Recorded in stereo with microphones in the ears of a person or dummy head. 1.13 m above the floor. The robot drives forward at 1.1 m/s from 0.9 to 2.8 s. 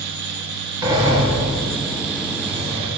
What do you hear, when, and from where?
0.8 s a sliding door: 20° right (ahead or behind), 5.5 m; by 2.9 s 35° right (ahead or behind), 4 m